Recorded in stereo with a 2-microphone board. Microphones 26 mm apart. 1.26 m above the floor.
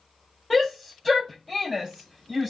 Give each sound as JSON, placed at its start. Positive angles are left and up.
{"t": 0.5, "sound": "a shout", "side_deg": -5, "distance_m": 2.5}